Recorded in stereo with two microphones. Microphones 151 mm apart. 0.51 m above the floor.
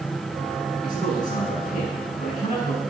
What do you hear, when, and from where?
0.8 s a man speaking: 55° left (ahead or behind), 6 m